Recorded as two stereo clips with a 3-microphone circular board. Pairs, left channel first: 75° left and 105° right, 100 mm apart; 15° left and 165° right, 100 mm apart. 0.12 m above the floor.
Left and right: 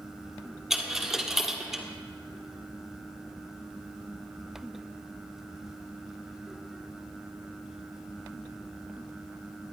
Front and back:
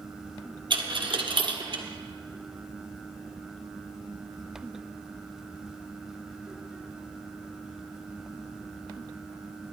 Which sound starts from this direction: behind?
A dropped coin, at 0.7 s.